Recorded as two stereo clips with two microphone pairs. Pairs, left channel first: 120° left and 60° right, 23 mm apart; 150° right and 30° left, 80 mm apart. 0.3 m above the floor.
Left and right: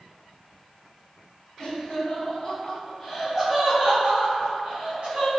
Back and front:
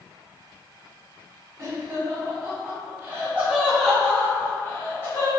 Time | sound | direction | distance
1.6 | laughter | 65° left | 1.8 m